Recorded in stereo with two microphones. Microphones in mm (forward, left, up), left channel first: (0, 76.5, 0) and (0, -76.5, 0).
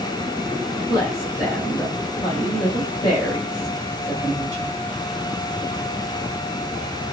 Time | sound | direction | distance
0.9 | a woman speaking | 25° left (ahead or behind) | 2.5 m